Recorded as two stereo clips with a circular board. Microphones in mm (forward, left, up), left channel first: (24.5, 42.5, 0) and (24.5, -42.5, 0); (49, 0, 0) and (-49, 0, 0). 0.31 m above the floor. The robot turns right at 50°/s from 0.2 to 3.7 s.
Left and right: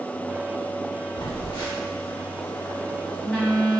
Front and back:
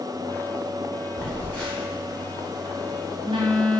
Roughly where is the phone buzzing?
Ahead left.